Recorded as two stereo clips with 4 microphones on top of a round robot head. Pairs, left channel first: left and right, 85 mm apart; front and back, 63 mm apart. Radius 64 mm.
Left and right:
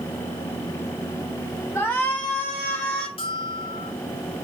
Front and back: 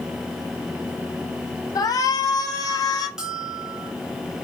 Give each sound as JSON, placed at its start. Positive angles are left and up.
{"t": 1.8, "sound": "a shout", "azimuth_deg": 20, "distance_m": 4.0}
{"t": 3.2, "sound": "a bell", "azimuth_deg": 100, "distance_m": 3.5}